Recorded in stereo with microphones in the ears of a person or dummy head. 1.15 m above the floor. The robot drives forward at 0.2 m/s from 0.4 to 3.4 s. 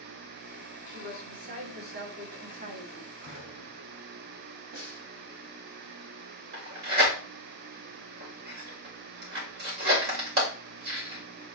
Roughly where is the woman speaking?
Right.